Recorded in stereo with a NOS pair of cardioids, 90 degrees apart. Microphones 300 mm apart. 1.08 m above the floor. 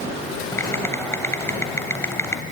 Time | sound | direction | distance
0.5 | typing on a keyboard | 10° left | 3 m